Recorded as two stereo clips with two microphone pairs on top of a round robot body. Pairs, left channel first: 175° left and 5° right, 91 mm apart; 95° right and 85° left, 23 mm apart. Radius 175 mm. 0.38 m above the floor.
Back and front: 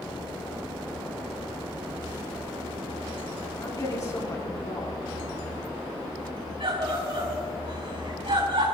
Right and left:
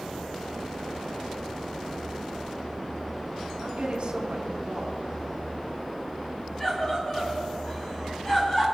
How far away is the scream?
About 4.5 m.